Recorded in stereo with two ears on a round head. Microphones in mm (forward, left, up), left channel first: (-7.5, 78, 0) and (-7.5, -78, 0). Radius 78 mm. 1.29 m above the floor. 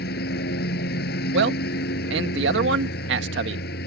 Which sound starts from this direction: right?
A man speaking, at 1.3 s.